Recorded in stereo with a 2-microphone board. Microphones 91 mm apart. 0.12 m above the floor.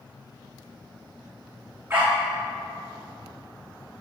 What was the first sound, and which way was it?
A dog barking, 30° right (ahead or behind).